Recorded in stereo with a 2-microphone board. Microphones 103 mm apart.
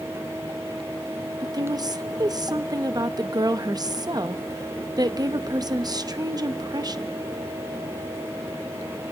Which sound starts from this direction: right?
A woman speaking, at 1.4 s.